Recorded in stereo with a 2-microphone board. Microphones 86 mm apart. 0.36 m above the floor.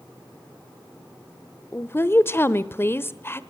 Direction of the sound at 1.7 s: 25° left (ahead or behind).